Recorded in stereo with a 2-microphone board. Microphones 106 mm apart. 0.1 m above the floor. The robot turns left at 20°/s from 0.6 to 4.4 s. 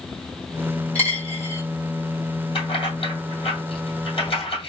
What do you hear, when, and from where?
0.9 s a dropped coin: 20° left (ahead or behind), 1.6 m; by 1.6 s 30° left (ahead or behind), 1.6 m
2.5 s keys jangling: 55° left (ahead or behind), 2 m; by 4.7 s 65° left (ahead or behind), 2 m